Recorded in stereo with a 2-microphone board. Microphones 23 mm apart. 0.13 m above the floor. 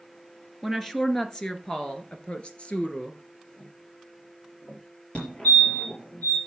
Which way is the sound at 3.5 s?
30° left (ahead or behind).